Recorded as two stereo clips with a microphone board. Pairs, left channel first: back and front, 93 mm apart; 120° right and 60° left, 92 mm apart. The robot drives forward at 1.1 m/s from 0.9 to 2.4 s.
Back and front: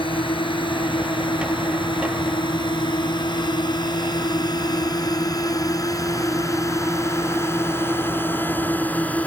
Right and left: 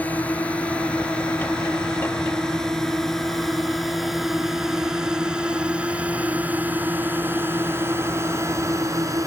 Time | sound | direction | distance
0.0 | a drone | 165° left | ?